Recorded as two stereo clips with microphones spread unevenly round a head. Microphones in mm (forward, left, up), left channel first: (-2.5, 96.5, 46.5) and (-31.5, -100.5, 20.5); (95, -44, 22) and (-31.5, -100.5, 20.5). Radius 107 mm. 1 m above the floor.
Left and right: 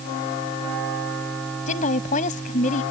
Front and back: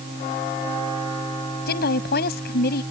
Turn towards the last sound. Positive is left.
turn(degrees=25)